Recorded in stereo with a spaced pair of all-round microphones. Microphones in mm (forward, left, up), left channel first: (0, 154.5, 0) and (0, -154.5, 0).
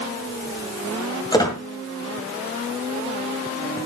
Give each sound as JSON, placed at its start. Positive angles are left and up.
{"t": 1.3, "sound": "a squeak", "side_deg": 15, "distance_m": 2.0}